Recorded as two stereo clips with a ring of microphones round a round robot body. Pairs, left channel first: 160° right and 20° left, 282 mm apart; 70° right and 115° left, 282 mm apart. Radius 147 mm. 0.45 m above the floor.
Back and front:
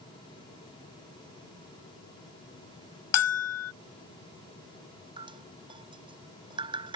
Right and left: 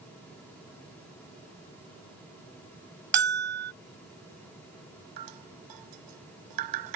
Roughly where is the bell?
Behind.